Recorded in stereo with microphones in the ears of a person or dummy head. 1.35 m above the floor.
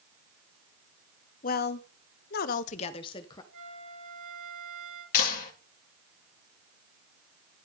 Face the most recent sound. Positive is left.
turn(degrees=50)  # may be behind; listen again after turning